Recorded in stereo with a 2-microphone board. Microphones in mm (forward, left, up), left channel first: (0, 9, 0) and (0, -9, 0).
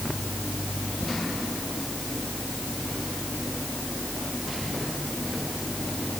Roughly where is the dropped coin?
I don't hear a dropped coin.